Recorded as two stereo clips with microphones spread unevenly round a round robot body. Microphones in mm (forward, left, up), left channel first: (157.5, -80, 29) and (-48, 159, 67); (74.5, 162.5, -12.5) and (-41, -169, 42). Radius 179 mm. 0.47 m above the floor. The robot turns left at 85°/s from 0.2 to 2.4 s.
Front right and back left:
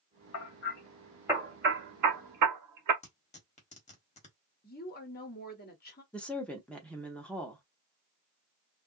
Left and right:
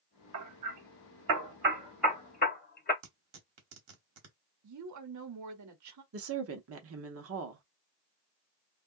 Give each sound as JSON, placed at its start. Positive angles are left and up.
{"t": 0.3, "sound": "hammering", "azimuth_deg": -60, "distance_m": 1.0}
{"t": 3.0, "sound": "tearing paper", "azimuth_deg": -90, "distance_m": 1.4}
{"t": 4.6, "sound": "a woman speaking", "azimuth_deg": -85, "distance_m": 1.0}
{"t": 6.1, "sound": "a woman speaking", "azimuth_deg": -120, "distance_m": 0.8}